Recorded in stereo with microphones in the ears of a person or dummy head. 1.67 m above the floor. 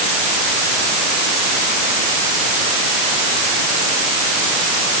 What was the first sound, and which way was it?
Only background noise.